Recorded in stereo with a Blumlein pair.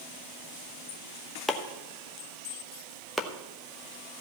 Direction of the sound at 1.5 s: 5° left.